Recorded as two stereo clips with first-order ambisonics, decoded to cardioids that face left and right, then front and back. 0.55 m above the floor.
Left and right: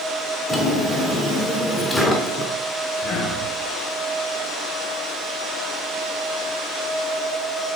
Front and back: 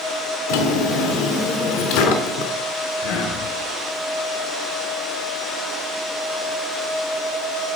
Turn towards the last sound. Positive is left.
turn(degrees=25)